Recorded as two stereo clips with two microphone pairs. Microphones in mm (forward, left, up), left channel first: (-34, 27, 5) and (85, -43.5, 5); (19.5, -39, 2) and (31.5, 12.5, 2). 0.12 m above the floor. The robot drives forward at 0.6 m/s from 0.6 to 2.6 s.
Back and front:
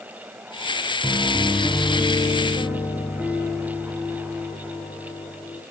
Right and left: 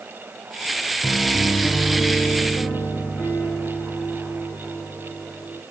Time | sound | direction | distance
1.0 | a piano | 90° right | 3 m